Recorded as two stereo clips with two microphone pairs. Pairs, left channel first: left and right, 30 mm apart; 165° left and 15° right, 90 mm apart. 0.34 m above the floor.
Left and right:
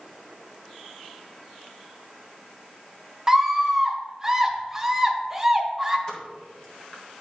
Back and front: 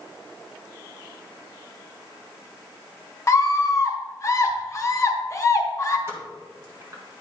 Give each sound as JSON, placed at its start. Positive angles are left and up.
{"t": 3.3, "sound": "a scream", "azimuth_deg": -160, "distance_m": 1.1}
{"t": 6.1, "sound": "a pop", "azimuth_deg": 35, "distance_m": 1.8}